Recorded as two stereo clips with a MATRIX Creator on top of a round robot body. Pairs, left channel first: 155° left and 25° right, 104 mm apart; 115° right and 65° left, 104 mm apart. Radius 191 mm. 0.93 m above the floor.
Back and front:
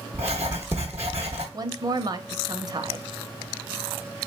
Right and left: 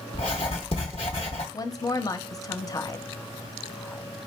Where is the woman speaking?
65° right, 0.9 m.